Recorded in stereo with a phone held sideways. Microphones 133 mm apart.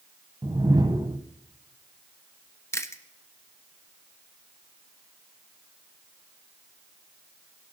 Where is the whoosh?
35° right (ahead or behind), 1.0 m.